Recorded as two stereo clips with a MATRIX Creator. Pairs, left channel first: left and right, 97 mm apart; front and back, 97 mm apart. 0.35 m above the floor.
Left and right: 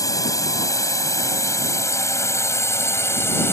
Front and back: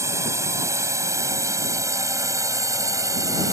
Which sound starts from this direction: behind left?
A drone, at 0.0 s.